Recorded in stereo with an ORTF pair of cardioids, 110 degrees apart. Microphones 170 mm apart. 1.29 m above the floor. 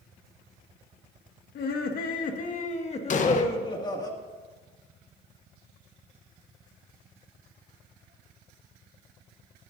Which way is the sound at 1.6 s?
65° left.